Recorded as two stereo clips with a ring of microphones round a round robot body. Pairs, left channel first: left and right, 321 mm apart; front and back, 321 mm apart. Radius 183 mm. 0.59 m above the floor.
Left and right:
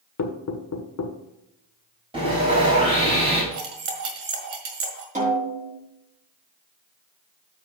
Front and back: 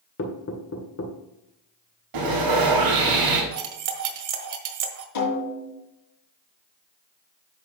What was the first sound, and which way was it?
Knocking, 55° left.